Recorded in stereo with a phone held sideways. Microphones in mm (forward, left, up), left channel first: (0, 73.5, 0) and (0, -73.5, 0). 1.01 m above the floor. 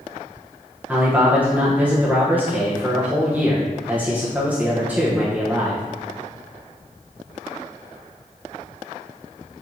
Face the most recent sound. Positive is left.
turn(degrees=-10)  # may be behind; listen again after turning